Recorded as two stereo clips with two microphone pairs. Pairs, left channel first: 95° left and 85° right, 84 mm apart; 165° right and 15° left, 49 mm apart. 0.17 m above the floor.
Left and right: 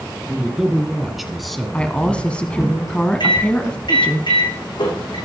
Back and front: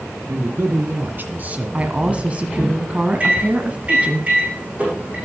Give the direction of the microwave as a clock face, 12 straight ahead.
9 o'clock.